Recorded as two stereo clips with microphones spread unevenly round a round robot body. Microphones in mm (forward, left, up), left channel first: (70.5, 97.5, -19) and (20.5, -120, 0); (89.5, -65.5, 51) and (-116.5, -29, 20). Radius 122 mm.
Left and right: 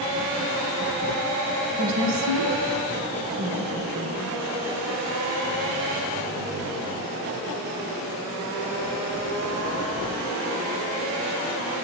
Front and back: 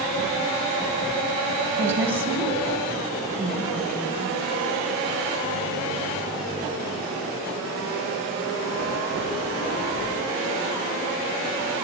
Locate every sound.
1.8 s a woman speaking: 115° right, 3 m; by 4.3 s 95° right, 4 m